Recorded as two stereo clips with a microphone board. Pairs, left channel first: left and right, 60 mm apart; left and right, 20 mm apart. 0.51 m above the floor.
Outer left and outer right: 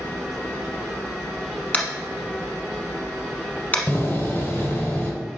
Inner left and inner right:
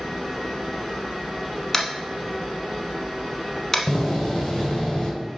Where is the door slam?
30° left (ahead or behind), 1.7 m.